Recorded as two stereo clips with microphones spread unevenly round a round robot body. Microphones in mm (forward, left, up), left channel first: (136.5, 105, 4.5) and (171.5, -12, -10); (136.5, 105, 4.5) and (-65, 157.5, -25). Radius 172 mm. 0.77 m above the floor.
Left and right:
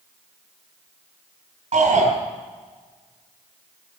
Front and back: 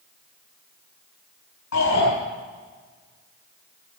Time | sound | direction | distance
1.7 | a shout | 65° right | 4.5 m